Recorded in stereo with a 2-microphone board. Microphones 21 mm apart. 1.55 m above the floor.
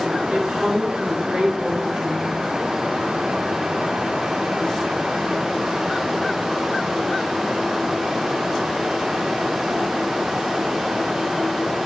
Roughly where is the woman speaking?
Right.